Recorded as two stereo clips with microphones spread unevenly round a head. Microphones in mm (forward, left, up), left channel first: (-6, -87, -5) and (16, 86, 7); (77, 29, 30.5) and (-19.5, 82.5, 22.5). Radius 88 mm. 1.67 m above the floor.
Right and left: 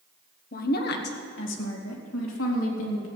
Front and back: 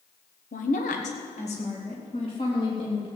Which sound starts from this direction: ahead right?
A woman speaking, at 0.5 s.